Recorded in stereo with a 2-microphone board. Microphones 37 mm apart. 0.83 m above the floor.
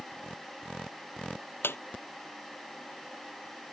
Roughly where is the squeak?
Left.